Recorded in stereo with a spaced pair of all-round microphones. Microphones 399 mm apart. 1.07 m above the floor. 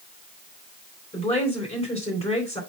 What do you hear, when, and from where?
1.1 s a woman speaking: 10° left (ahead or behind), 4 m